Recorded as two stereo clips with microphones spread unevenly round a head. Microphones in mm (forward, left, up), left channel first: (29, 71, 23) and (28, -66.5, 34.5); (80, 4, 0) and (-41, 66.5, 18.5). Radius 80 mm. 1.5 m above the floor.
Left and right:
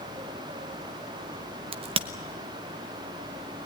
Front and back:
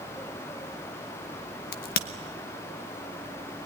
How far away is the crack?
About 1.0 m.